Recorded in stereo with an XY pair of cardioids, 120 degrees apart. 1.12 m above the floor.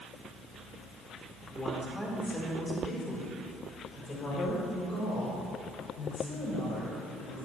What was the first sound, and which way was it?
A woman speaking, straight ahead.